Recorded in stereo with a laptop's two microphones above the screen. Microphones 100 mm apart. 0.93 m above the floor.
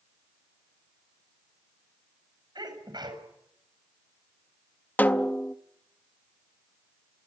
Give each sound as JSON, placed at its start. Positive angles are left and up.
{"t": 2.5, "sound": "a sneeze", "side_deg": -45, "distance_m": 6.5}
{"t": 5.0, "sound": "a snare drum", "side_deg": 20, "distance_m": 0.6}